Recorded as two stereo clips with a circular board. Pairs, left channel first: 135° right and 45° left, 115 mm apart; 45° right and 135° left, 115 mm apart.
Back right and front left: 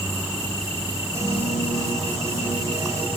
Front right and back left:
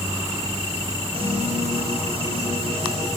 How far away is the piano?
About 4 m.